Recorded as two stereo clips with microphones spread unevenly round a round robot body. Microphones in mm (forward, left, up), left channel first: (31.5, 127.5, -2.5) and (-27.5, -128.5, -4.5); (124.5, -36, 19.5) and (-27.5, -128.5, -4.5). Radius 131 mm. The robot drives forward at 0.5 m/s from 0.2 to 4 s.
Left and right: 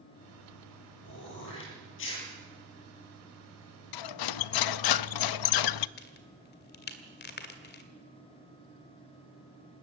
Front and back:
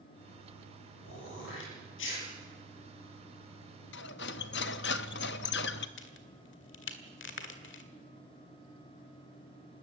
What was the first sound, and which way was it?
Throat clearing, 30° left.